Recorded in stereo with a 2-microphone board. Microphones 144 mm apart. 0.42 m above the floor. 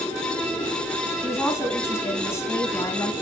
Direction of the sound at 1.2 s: 20° left (ahead or behind).